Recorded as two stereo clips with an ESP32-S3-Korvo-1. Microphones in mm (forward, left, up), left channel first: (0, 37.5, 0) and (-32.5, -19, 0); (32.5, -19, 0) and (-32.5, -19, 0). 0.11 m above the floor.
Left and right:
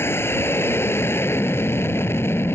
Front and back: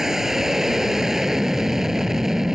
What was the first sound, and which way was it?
An aircraft, 100° left.